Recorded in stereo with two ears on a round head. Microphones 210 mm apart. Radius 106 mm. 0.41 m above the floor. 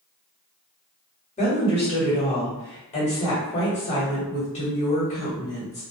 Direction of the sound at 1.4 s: 30° left (ahead or behind).